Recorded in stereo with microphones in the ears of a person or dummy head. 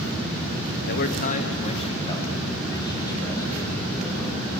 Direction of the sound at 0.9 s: 55° left (ahead or behind).